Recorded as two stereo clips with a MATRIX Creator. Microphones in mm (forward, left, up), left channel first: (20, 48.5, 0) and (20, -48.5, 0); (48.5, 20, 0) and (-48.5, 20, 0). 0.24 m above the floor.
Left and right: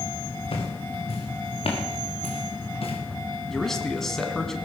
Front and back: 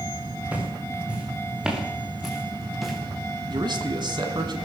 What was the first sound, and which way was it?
Footsteps, 105° left.